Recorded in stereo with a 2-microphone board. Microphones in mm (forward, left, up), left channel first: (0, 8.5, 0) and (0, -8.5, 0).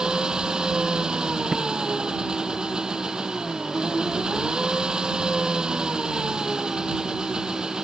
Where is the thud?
30° right (ahead or behind).